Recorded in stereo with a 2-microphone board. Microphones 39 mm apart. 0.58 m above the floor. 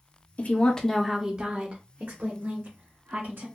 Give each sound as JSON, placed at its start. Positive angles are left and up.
{"t": 0.4, "sound": "a woman speaking", "side_deg": 40, "distance_m": 0.7}